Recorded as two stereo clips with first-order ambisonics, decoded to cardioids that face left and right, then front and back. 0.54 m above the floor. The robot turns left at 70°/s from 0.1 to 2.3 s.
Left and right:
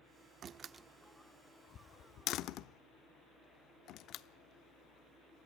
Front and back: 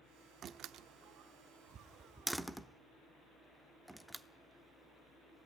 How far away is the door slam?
About 0.7 m.